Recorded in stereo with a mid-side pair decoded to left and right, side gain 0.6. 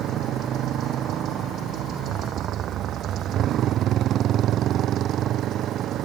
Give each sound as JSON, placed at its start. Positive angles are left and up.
{"t": 0.0, "sound": "a motorcycle", "azimuth_deg": -50}